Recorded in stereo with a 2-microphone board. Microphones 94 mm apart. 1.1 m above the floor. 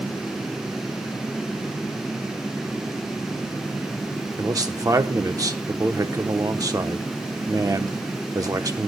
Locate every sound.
4.4 s a man speaking: 40° right (ahead or behind), 0.8 m